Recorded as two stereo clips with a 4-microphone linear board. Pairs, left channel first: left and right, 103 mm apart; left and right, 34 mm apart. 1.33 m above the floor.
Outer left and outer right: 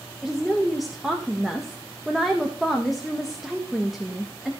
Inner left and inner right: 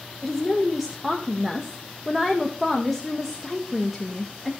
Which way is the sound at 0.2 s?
Centre (ahead or behind).